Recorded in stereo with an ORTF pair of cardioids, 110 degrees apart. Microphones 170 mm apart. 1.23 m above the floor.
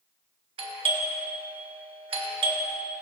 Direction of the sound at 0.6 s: 35° right.